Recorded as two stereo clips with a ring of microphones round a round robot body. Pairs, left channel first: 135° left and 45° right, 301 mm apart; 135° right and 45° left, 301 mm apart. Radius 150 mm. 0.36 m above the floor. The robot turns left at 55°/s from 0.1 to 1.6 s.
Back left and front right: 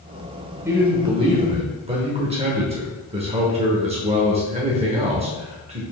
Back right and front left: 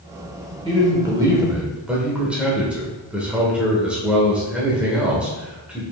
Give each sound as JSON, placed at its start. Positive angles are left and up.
{"t": 0.7, "sound": "a man speaking", "azimuth_deg": 20, "distance_m": 0.8}